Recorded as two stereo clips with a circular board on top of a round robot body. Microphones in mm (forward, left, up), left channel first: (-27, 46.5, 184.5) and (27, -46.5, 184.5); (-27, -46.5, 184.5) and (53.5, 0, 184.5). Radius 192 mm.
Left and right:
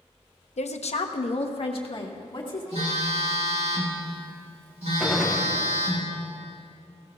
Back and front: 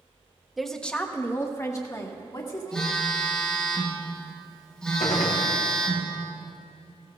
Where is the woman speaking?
120° left, 0.9 m; by 2.9 s 165° left, 2 m.